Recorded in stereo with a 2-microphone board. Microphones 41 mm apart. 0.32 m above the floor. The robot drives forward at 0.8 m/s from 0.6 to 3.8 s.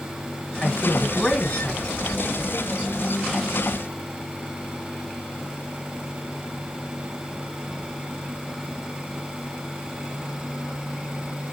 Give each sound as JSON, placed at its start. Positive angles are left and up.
{"t": 0.6, "sound": "a man speaking", "side_deg": 25, "distance_m": 2.5}